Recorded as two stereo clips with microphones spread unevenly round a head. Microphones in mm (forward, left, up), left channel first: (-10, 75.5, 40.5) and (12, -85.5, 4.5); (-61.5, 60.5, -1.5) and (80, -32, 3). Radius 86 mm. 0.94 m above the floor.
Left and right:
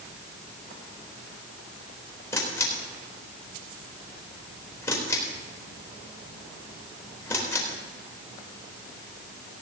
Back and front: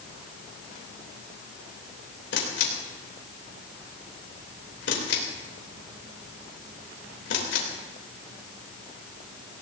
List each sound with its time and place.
2.3 s a camera shutter: 175° left, 3.5 m